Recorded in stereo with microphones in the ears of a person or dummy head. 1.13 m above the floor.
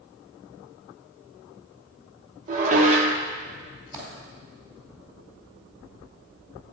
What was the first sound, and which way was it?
Dishes clattering, 40° right (ahead or behind).